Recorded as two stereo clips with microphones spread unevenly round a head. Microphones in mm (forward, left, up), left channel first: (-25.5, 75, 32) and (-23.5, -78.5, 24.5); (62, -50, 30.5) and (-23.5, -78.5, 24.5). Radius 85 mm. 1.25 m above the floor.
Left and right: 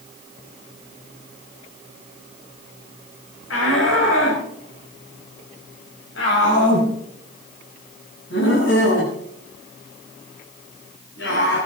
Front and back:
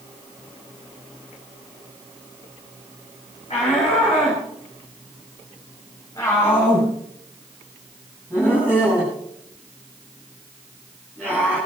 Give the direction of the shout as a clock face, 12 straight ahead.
9 o'clock.